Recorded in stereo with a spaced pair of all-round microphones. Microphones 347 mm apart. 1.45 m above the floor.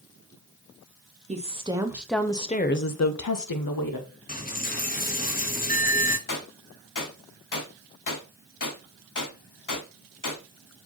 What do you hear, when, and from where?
1.3 s a woman speaking: 20° right (ahead or behind), 1.0 m; by 4.1 s 75° left (ahead or behind), 0.9 m
4.3 s a dropped coin: 25° left (ahead or behind), 0.8 m
6.3 s a gunshot: 60° left (ahead or behind), 0.7 m